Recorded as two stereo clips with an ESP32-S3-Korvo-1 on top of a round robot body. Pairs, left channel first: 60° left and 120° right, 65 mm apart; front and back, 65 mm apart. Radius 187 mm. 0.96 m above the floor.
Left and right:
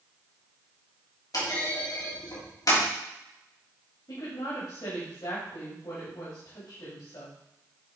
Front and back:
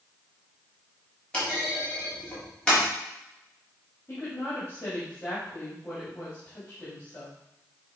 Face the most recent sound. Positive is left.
turn(degrees=60)